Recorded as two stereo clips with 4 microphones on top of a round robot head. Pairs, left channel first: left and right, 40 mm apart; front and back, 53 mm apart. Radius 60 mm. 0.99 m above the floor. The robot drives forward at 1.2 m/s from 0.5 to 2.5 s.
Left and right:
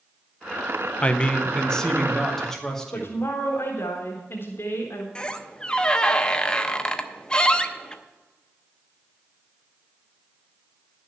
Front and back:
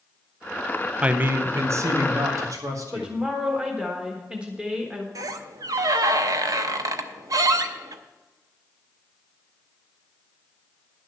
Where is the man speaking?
120° left, 0.7 m; by 3.2 s 170° left, 2 m.